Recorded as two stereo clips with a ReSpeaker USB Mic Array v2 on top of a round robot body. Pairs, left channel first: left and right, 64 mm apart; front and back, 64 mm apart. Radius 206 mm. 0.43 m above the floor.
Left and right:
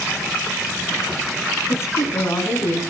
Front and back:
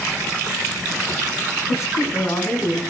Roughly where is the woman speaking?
Ahead left.